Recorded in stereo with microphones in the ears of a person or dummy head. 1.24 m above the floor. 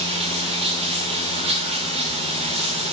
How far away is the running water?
About 1.4 m.